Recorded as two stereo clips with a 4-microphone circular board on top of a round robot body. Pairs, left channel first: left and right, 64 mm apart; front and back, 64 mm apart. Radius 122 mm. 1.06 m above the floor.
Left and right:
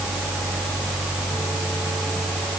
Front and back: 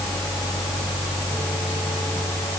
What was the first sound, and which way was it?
Only background noise.